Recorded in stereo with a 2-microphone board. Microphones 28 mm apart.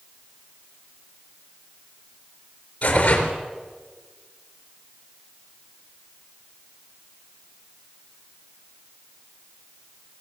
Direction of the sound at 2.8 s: 40° left (ahead or behind).